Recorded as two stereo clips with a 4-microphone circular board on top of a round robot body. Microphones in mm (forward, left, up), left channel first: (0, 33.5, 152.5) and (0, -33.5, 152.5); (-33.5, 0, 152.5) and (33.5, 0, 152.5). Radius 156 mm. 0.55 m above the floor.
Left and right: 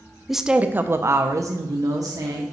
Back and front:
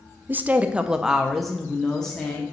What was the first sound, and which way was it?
A woman speaking, 5° right.